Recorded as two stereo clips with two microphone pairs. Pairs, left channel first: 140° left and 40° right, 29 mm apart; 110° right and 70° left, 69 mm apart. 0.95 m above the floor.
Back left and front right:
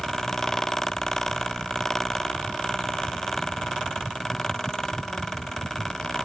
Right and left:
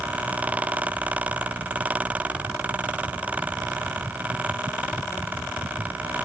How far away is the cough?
No cough in this recording.